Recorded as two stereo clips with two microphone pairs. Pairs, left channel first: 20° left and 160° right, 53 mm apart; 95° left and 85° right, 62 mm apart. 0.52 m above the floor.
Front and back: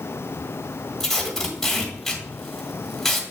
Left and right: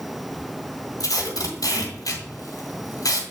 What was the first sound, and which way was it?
Tape being pulled, 100° left.